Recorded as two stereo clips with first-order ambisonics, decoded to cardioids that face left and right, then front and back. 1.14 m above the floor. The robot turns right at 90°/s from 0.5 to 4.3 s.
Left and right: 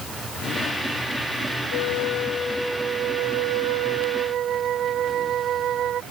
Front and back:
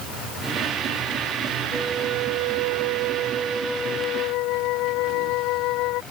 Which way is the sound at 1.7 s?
95° left.